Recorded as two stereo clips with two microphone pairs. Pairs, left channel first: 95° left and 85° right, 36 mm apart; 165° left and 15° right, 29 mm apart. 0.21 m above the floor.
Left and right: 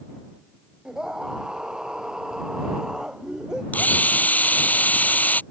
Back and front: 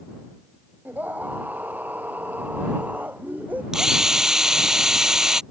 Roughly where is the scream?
Ahead.